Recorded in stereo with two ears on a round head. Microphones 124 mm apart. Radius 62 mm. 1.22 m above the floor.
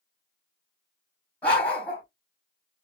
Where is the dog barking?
10° left (ahead or behind), 2 m.